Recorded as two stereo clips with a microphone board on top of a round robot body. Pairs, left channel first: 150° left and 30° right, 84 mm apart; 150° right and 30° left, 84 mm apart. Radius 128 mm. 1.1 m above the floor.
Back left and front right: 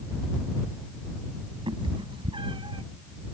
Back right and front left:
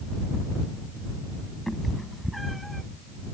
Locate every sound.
1.7 s a cat meowing: 60° right